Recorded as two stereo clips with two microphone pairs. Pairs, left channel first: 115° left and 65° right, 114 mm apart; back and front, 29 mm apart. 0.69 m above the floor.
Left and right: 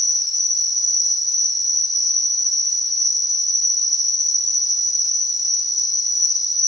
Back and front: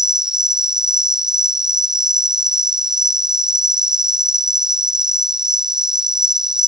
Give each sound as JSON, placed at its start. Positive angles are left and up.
{"t": 0.0, "sound": "an insect", "azimuth_deg": 65}